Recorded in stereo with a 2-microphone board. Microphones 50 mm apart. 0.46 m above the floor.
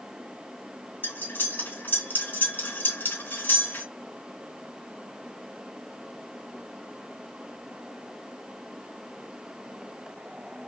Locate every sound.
1.0 s cutlery clinking: 45° left (ahead or behind), 2 m